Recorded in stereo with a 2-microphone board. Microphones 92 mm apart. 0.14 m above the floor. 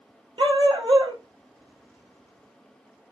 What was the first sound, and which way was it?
A dog barking, 65° right (ahead or behind).